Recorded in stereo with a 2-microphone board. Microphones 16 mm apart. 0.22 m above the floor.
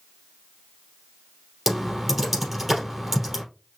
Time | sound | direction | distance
1.7 | typing on a keyboard | 15° right (ahead or behind) | 3 m